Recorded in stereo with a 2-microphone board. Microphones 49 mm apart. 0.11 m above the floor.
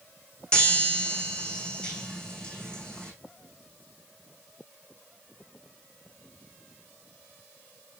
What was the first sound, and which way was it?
A chime, 20° left (ahead or behind).